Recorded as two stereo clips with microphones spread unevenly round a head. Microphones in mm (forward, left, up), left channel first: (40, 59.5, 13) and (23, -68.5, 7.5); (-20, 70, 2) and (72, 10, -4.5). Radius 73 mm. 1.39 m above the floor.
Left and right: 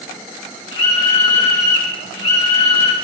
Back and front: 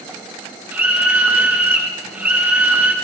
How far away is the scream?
About 2.5 m.